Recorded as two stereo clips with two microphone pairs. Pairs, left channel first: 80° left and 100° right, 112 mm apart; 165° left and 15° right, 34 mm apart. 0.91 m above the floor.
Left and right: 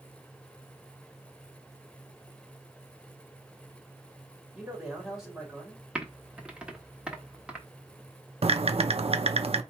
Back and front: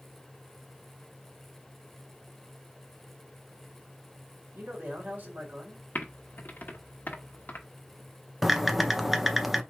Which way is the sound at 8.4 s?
95° right.